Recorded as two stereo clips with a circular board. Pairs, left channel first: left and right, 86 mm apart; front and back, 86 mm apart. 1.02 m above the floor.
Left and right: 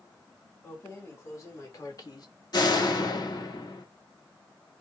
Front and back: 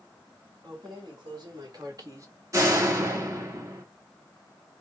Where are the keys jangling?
150° left, 2.5 m; by 2.3 s 130° left, 1.0 m.